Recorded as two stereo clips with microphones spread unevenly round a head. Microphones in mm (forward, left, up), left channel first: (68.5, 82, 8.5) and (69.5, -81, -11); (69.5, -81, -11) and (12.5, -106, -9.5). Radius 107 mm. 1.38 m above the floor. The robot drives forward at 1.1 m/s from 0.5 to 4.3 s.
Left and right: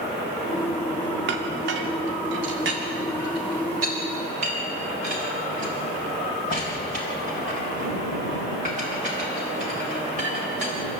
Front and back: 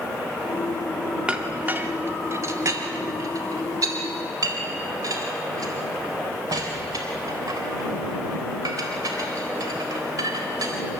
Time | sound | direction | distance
1.3 | a clink | 85° right | 2.0 m